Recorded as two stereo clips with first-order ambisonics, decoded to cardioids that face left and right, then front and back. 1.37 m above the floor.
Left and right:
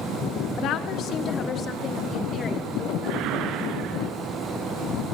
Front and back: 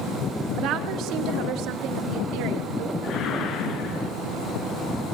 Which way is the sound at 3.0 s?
55° right.